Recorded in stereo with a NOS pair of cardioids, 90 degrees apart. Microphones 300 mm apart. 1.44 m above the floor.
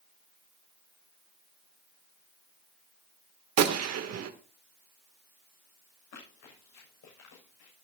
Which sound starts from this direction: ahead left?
Running footsteps, at 6.1 s.